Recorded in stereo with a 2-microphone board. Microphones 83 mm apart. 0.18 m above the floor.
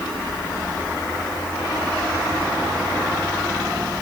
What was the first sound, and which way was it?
Only background noise.